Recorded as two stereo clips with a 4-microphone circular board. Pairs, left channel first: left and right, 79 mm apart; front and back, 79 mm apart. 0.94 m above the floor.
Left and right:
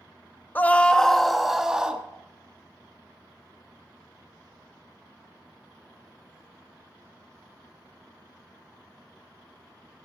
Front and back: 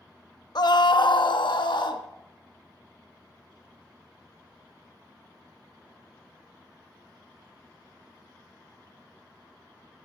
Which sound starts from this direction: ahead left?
A scream, at 0.6 s.